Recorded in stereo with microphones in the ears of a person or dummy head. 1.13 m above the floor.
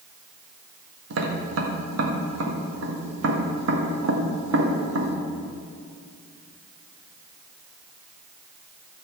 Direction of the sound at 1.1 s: 65° right (ahead or behind).